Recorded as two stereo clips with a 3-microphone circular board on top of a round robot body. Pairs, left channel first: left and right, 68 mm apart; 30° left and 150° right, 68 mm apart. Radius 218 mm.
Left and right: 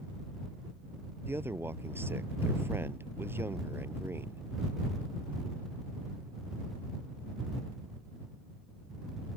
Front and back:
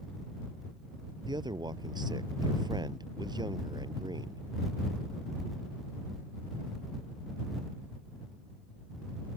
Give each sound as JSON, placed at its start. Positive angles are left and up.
{"t": 1.3, "sound": "a man speaking", "azimuth_deg": -145}